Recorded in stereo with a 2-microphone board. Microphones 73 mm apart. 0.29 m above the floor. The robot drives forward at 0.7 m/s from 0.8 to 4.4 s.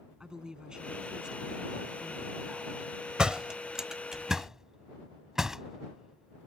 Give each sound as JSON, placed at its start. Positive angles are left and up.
{"t": 0.2, "sound": "a woman speaking", "side_deg": -10}
{"t": 3.2, "sound": "a door slam", "side_deg": -10}